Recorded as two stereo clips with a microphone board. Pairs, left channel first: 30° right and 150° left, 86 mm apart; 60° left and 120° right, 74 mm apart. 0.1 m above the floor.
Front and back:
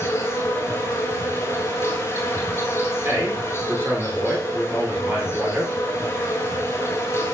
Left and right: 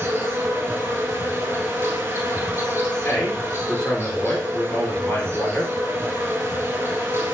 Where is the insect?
75° right, 1.2 m.